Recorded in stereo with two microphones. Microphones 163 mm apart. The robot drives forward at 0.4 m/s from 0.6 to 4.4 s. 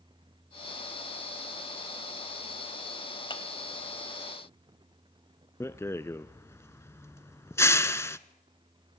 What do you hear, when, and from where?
3.3 s a clap: 30° left (ahead or behind), 2 m
5.6 s a rattle: 15° left (ahead or behind), 0.8 m